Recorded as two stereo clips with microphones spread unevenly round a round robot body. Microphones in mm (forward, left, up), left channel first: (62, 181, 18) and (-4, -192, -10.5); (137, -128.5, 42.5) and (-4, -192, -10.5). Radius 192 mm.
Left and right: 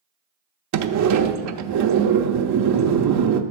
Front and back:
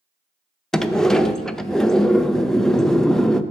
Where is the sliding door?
80° right, 0.6 m.